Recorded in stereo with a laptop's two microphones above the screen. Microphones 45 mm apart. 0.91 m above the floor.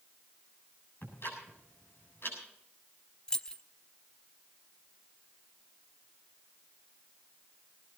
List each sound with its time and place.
1.0 s ticking: 55° left (ahead or behind), 7.5 m
3.3 s keys jangling: 15° left (ahead or behind), 0.5 m